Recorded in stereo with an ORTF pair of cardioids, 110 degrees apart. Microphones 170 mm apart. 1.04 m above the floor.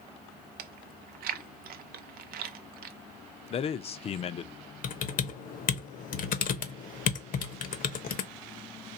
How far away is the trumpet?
I don't hear a trumpet.